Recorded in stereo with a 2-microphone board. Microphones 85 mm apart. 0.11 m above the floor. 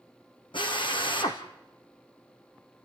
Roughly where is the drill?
Left.